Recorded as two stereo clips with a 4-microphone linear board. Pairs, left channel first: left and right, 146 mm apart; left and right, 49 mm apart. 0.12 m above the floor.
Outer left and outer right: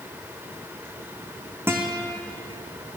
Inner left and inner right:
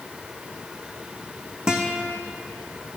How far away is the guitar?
About 1.4 m.